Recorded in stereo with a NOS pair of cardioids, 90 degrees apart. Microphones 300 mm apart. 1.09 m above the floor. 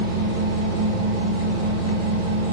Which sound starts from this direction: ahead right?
A machine running, at 0.0 s.